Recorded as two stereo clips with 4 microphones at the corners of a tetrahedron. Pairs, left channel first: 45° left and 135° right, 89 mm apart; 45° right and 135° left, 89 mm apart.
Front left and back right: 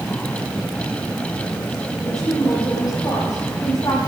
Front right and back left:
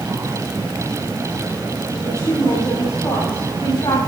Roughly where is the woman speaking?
Ahead.